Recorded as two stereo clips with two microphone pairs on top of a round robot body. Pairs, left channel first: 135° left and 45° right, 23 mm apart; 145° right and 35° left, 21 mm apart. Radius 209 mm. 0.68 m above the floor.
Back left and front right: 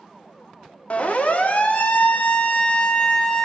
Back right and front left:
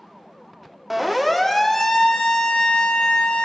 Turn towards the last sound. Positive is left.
turn(degrees=-165)